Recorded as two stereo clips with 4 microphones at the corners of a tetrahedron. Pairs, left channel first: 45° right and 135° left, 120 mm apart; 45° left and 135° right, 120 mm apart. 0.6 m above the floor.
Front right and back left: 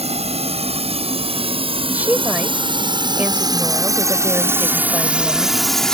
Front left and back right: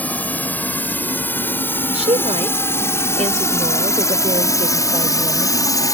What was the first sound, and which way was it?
A drone, 120° left.